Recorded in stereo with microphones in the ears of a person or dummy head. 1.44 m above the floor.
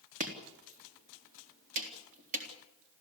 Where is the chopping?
40° right (ahead or behind), 3.5 m.